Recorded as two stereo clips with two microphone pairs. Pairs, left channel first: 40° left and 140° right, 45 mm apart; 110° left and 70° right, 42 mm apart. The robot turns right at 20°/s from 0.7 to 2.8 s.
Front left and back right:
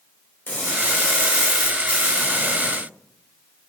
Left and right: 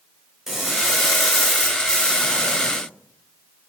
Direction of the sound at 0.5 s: 5° left.